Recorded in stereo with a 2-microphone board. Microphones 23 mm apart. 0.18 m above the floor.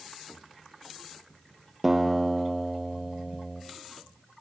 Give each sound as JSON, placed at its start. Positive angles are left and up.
{"t": 1.8, "sound": "a guitar", "side_deg": -15, "distance_m": 2.5}